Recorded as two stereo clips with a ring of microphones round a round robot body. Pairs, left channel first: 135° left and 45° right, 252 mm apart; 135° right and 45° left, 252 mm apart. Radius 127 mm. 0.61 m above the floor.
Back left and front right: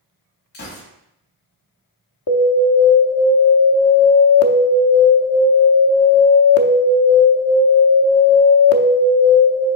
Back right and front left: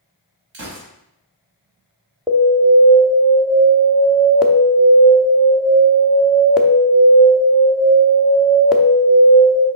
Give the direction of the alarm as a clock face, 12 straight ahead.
8 o'clock.